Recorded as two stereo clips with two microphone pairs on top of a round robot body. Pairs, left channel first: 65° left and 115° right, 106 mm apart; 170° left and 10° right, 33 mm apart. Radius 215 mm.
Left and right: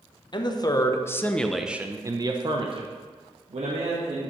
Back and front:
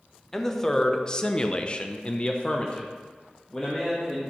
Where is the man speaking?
90° left, 1.6 m; by 4.3 s 120° right, 2.5 m.